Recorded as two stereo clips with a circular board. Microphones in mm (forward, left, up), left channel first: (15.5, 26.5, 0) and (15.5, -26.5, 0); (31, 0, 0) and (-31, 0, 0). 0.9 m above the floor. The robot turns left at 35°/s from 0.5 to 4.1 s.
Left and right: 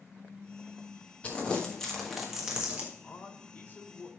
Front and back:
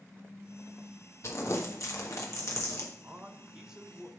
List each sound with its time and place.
1.2 s crumpling: 30° left, 1.3 m; by 2.9 s 25° right, 1.3 m
3.0 s a man speaking: 130° left, 0.8 m; by 4.1 s 90° left, 0.8 m